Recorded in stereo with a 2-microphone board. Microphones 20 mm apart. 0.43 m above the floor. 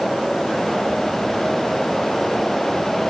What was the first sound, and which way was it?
Only background noise.